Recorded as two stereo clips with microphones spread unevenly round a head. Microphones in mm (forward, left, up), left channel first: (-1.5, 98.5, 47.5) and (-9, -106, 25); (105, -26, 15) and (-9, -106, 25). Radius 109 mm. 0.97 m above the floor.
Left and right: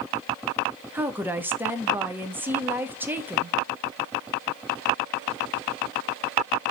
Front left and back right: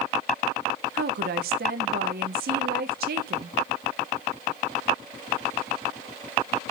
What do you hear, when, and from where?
0.9 s a woman speaking: 170° right, 1.7 m